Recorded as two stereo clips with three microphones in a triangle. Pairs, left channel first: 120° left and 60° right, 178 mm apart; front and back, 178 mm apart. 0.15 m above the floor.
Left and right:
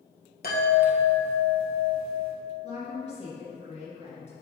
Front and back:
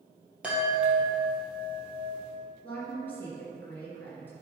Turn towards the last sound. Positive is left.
turn(degrees=75)